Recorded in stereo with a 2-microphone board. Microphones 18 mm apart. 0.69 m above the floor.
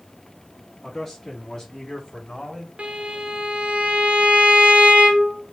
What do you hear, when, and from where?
0.8 s a man speaking: 25° left (ahead or behind), 1.3 m; by 2.7 s 60° left (ahead or behind), 1.7 m
2.8 s a violin: 70° right (ahead or behind), 1.1 m